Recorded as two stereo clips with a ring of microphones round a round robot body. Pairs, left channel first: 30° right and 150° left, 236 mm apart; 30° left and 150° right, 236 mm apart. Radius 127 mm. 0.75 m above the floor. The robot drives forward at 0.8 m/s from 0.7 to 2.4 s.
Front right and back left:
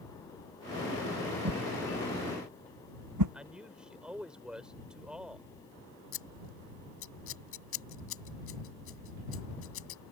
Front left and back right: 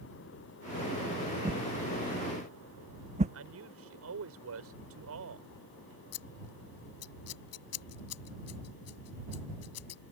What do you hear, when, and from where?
1.4 s a whoosh: 145° left
3.3 s a man speaking: 125° right
6.1 s scissors: 5° left